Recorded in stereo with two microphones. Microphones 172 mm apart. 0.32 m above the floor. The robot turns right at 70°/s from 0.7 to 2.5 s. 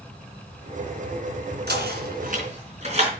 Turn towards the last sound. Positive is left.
turn(degrees=-40)  # may be behind; listen again after turning